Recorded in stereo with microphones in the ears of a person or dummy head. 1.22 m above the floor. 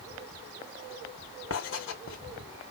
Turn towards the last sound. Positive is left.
turn(degrees=65)  # may be behind; listen again after turning